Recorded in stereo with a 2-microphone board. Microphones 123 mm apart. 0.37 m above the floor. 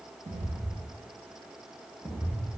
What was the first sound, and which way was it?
Footsteps, 75° right (ahead or behind).